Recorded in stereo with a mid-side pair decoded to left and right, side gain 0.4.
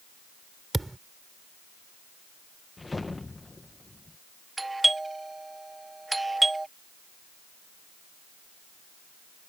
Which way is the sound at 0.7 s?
15° right.